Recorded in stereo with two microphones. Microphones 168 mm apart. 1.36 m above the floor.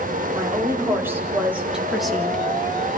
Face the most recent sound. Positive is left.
turn(degrees=10)  # may be behind; listen again after turning